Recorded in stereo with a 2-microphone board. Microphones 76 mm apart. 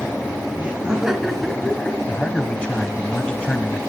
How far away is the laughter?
About 1.8 m.